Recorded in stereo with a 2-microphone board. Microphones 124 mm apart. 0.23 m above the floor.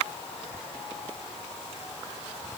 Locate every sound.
Only background noise.